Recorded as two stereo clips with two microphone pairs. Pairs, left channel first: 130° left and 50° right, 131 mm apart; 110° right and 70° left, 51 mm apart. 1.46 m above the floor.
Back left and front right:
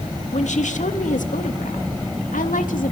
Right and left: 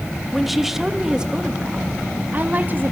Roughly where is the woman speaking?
Behind.